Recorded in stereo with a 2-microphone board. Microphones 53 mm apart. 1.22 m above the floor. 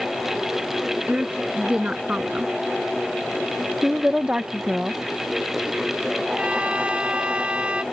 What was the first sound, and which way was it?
A woman speaking, 25° right (ahead or behind).